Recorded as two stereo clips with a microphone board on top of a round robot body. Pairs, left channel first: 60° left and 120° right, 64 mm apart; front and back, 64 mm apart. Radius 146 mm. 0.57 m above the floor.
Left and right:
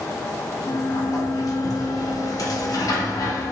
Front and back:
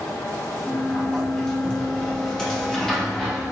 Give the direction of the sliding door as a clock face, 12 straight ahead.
9 o'clock.